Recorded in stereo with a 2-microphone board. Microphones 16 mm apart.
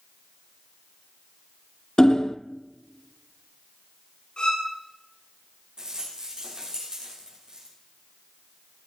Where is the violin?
75° left (ahead or behind), 9.5 m.